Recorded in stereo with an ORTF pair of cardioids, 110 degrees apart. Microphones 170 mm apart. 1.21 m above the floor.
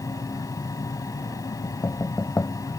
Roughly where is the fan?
Ahead.